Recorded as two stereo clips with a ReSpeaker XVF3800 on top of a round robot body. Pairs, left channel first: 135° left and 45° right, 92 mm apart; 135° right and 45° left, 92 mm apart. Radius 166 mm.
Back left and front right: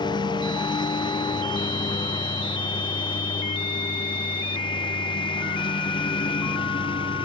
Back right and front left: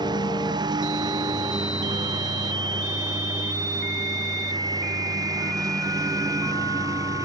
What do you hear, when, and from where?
0.0 s a lawn mower: 90° left; by 7.3 s 100° left